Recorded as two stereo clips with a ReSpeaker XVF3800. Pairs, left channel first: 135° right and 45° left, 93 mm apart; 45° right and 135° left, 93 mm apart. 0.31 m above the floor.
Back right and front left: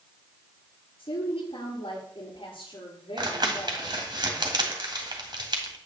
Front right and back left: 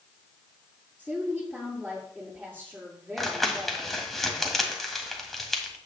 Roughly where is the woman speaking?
Behind right.